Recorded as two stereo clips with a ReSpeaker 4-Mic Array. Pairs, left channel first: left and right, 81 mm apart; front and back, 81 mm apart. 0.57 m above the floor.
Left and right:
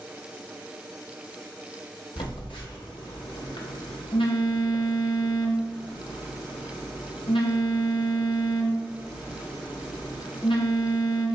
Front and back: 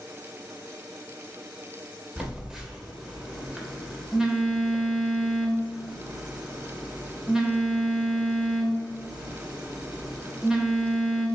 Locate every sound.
2.2 s a phone buzzing: 95° left, 0.7 m